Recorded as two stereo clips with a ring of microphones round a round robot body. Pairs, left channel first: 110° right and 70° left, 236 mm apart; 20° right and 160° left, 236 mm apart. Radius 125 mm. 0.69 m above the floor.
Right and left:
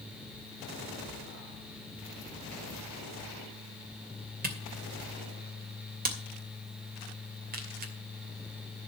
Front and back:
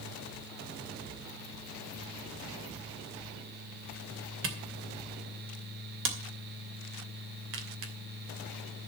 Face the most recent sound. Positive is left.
turn(degrees=120)